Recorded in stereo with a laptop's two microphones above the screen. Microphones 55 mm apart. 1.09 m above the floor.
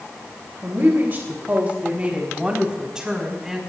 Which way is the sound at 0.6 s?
45° right (ahead or behind).